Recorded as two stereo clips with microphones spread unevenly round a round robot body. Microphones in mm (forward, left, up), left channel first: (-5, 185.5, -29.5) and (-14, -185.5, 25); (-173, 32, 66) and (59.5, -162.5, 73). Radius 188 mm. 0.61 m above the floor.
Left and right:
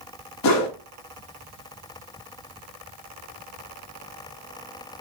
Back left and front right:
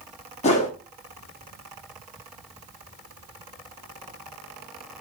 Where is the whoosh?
80° left, 1.2 m.